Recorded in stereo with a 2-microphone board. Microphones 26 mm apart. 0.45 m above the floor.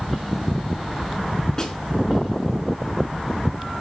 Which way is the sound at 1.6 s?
25° left (ahead or behind).